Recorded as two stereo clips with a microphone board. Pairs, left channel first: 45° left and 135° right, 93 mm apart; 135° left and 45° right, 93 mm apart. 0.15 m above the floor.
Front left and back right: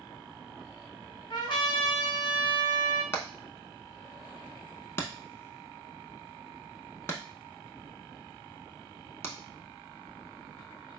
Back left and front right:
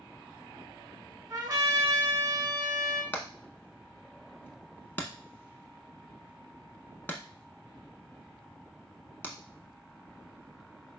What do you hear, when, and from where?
1.3 s a trumpet: 10° left, 1.3 m
3.1 s hammering: 85° left, 0.6 m